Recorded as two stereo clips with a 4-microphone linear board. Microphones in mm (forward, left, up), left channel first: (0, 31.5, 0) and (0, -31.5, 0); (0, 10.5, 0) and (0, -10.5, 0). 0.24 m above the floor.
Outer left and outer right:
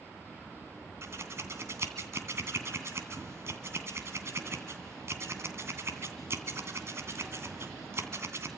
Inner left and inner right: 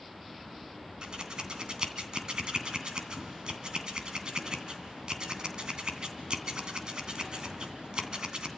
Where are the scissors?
45° right (ahead or behind), 2.5 m.